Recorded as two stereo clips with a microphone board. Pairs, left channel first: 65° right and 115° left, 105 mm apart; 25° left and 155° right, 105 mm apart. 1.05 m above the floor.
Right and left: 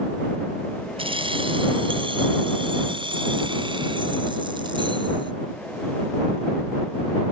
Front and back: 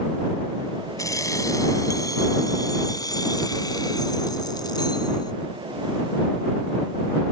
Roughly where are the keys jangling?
Left.